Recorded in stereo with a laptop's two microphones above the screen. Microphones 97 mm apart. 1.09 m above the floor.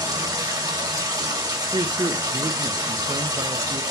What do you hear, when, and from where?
0.0 s running water: 35° right (ahead or behind), 2 m
1.7 s a man speaking: 50° right (ahead or behind), 0.5 m